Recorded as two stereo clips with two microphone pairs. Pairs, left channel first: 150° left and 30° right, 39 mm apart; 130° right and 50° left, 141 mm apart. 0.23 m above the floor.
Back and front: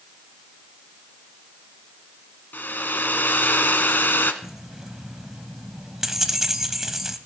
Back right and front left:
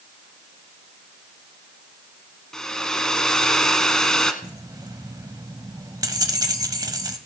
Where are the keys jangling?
40° left, 0.9 m.